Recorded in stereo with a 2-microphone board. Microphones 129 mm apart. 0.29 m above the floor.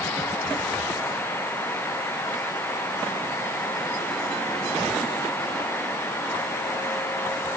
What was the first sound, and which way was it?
Only background noise.